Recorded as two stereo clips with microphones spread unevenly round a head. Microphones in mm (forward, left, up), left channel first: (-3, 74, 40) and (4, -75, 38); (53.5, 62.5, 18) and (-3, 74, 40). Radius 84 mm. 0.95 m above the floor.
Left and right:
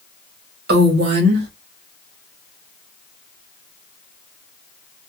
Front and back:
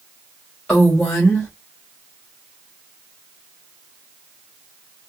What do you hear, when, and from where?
0.7 s a woman speaking: 90° right, 1.1 m